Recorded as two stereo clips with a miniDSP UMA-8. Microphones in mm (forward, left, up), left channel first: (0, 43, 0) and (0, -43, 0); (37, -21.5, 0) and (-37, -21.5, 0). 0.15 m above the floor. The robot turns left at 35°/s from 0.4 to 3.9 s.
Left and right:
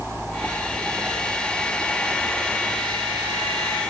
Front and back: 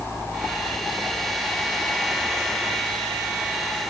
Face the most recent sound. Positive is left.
No sound to turn to.